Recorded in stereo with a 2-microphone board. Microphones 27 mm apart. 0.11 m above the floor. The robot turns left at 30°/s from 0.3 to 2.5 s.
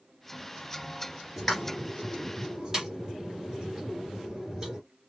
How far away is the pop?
About 2 m.